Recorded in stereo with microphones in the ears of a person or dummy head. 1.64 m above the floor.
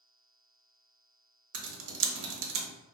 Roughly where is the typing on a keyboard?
Right.